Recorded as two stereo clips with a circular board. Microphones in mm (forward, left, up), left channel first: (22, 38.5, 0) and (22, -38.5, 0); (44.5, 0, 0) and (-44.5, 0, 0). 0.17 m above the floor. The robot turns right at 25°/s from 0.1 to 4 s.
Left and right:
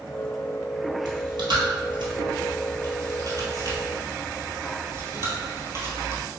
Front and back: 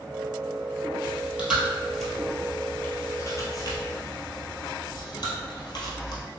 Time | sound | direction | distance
1.1 | chewing | 115° right | 1.2 m